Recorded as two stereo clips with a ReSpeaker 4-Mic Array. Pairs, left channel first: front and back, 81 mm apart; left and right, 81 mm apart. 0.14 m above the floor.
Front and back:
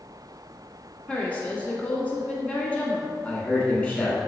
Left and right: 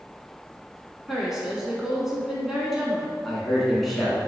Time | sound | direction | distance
1.1 | a woman speaking | 20° right | 1.0 m
3.2 | a man speaking | straight ahead | 1.1 m